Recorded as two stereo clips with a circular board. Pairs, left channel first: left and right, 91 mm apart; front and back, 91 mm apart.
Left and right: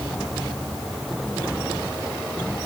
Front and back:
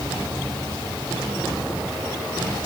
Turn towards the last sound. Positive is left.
No sound to turn to.